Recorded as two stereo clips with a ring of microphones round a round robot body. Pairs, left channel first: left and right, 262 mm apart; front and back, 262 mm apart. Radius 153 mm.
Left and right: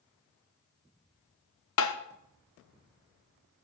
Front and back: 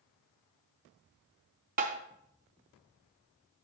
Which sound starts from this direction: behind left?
Tapping, at 1.8 s.